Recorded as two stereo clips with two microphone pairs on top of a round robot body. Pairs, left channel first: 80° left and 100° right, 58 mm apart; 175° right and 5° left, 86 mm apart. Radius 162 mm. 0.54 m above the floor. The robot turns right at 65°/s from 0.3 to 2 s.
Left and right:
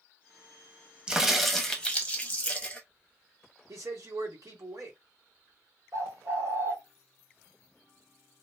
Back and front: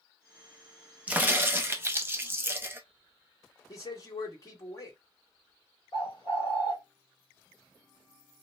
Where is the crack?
35° right, 0.9 m; by 2.8 s 25° left, 0.9 m.